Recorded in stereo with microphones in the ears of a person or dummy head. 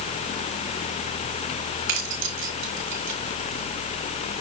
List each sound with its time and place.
1.9 s keys jangling: 65° right (ahead or behind), 5 m; by 4.4 s 50° right (ahead or behind), 3.5 m